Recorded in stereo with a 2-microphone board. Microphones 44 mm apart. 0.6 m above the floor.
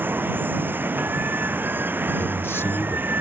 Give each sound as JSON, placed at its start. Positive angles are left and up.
{"t": 0.0, "sound": "running water", "side_deg": -45}
{"t": 2.2, "sound": "a man speaking", "side_deg": 65}